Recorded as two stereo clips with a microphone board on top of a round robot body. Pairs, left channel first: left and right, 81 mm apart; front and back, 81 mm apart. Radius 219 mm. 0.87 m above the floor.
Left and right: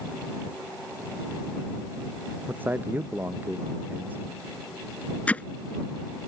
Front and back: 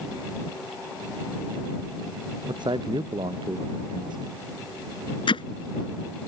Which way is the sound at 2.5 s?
160° right.